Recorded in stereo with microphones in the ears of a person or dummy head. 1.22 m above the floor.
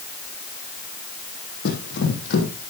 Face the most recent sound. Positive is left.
turn(degrees=60)  # may be behind; listen again after turning